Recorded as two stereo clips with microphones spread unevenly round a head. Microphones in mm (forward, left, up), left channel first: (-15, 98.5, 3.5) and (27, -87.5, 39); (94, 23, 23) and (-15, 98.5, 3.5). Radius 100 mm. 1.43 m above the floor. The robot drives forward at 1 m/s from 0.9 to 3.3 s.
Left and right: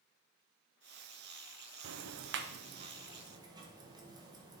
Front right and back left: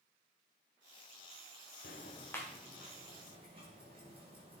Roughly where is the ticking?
Right.